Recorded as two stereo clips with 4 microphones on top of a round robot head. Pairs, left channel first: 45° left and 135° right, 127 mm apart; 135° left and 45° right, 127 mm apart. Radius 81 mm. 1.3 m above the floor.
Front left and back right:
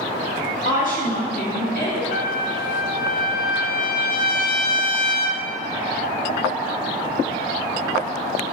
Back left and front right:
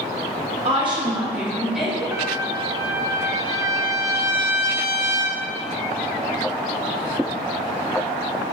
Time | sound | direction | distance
0.7 | a woman speaking | straight ahead | 1.6 m
2.1 | a trumpet | 25° left | 0.5 m